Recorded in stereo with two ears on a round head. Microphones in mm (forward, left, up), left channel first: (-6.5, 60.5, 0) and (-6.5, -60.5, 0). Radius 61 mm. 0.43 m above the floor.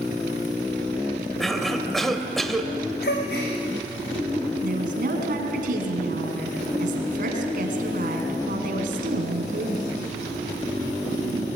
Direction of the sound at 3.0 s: 80° left.